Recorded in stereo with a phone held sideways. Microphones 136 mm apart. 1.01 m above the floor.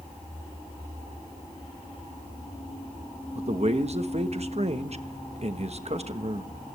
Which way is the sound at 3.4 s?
50° right (ahead or behind).